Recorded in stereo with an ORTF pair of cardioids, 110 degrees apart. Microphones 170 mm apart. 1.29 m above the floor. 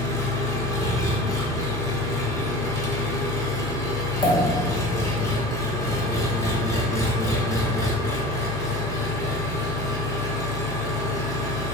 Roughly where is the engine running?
Ahead.